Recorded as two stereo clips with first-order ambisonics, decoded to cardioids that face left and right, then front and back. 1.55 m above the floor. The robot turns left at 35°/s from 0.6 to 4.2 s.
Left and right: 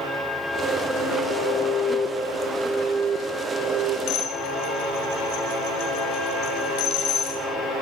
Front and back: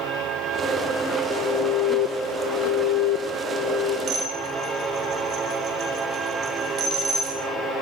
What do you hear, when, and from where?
1.3 s an alarm: 35° left, 1.9 m; by 4.0 s 60° right, 1.9 m
4.1 s dishes clattering: 130° left, 6.5 m; by 7.4 s 125° left, 6.5 m